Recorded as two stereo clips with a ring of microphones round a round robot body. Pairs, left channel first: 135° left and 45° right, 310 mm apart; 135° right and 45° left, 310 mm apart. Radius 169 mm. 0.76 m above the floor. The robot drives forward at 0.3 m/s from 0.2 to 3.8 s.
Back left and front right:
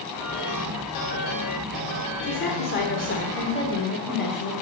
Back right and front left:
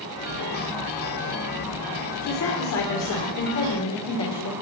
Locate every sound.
2.2 s a woman speaking: 170° right, 2 m; by 4.5 s 175° right, 2.5 m